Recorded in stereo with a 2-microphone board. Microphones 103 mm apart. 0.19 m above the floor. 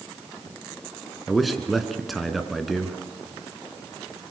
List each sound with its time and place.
1.3 s a man speaking: centre (ahead or behind), 2.5 m